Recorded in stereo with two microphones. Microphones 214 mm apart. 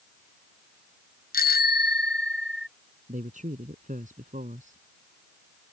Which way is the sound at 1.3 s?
45° left (ahead or behind).